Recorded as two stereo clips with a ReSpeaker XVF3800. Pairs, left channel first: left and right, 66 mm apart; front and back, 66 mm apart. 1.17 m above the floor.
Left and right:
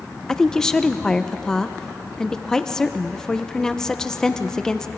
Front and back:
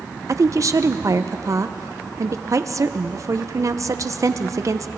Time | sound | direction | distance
0.3 | a woman speaking | 170° left | 0.8 m